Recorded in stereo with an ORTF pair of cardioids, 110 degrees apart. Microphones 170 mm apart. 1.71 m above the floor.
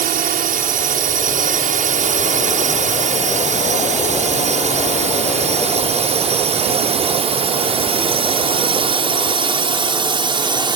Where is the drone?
55° right; by 10.8 s 25° right.